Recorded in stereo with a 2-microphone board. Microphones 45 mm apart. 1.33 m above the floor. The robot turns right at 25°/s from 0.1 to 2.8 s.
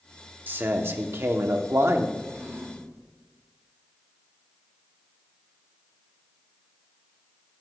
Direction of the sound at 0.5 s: 130° right.